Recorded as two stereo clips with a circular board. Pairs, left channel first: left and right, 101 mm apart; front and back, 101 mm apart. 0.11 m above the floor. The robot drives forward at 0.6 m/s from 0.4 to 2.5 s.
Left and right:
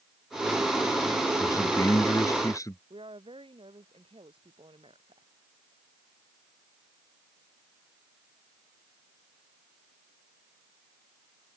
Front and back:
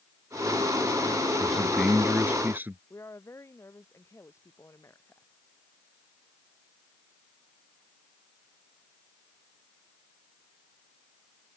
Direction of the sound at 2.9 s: 65° right.